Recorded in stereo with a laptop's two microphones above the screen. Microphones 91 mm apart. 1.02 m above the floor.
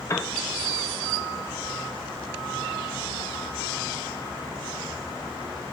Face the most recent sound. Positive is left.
turn(degrees=30)  # may be behind; listen again after turning